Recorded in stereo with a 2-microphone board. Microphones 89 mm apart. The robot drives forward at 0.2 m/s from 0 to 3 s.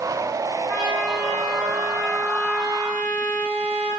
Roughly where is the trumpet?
Centre.